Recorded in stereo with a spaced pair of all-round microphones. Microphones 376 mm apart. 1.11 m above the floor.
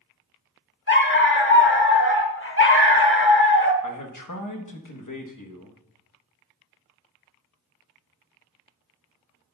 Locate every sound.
0.9 s a dog barking: 30° left (ahead or behind), 0.9 m
3.8 s a man speaking: 55° left (ahead or behind), 1.1 m